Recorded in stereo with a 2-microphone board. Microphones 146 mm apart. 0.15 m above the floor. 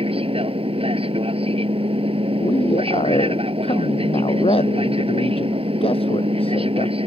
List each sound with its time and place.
0.0 s an aircraft: 40° right (ahead or behind)
2.4 s a man speaking: 40° left (ahead or behind)